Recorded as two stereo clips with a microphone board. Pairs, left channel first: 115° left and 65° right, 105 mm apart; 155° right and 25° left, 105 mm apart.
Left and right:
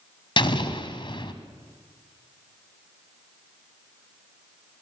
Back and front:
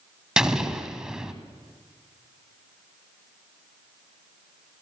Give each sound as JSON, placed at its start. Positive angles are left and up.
{"t": 0.4, "sound": "an explosion", "azimuth_deg": 105, "distance_m": 1.9}